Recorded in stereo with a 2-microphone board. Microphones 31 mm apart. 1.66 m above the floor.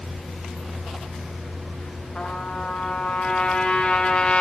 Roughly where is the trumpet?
Left.